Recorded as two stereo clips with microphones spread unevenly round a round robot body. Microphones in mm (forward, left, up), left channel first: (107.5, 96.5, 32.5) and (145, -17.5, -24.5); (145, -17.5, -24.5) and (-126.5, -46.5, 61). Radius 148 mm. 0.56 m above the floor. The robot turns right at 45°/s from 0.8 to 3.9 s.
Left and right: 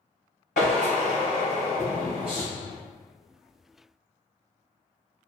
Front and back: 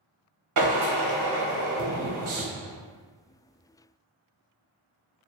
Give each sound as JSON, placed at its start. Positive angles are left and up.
{"t": 0.6, "sound": "a drill", "azimuth_deg": 155, "distance_m": 0.7}